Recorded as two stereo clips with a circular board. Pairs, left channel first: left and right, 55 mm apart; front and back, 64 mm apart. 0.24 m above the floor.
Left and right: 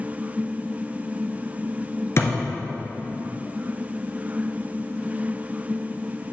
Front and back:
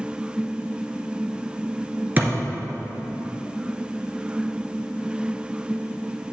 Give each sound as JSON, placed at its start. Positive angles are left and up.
{"t": 2.2, "sound": "a thud", "azimuth_deg": 120, "distance_m": 2.0}